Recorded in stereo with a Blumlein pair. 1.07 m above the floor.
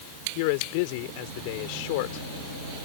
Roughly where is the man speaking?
Ahead left.